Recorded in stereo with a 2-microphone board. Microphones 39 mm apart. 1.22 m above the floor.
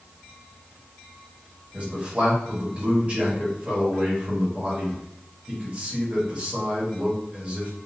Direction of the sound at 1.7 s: 35° right (ahead or behind).